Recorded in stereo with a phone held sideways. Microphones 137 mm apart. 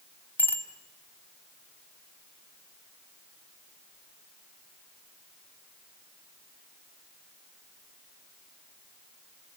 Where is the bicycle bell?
15° left (ahead or behind), 2 m.